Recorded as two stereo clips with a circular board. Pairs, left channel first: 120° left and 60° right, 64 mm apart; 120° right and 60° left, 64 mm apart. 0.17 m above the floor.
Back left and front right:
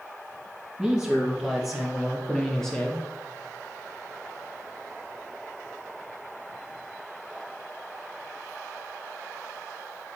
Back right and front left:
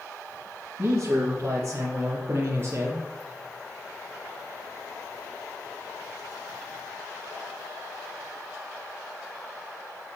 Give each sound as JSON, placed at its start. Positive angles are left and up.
{"t": 0.8, "sound": "a man speaking", "azimuth_deg": 10, "distance_m": 2.5}